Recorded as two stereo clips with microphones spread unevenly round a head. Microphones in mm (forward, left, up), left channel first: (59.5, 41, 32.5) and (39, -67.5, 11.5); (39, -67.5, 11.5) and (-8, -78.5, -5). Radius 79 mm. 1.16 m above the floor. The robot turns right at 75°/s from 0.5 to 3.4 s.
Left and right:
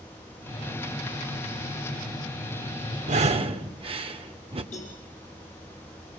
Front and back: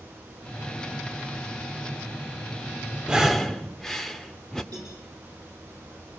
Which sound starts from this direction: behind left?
A cowbell, at 4.7 s.